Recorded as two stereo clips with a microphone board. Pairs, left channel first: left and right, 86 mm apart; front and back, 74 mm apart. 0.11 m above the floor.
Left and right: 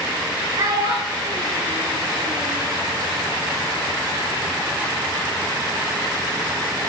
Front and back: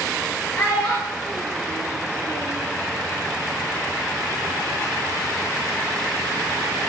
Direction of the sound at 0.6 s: 60° right.